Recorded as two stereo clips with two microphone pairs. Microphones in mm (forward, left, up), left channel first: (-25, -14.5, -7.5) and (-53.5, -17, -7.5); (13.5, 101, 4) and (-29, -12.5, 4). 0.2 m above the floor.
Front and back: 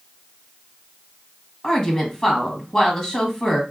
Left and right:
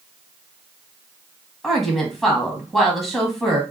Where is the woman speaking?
15° right, 1.1 m.